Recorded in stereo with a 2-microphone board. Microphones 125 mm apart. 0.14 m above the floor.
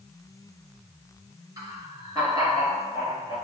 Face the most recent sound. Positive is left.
turn(degrees=-30)  # may be behind; listen again after turning